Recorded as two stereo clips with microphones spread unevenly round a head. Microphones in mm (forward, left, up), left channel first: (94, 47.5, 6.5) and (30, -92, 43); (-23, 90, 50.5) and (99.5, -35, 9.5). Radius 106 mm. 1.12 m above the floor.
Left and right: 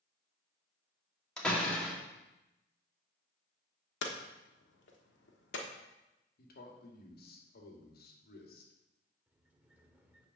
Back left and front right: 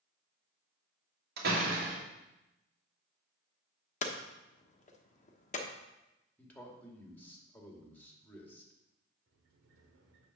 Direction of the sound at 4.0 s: 95° left.